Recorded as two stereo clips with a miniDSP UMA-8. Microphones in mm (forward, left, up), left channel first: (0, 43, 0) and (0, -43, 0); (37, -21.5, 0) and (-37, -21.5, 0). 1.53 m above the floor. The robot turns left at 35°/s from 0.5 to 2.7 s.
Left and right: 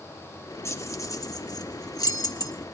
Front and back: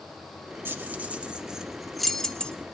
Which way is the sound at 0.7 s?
135° left.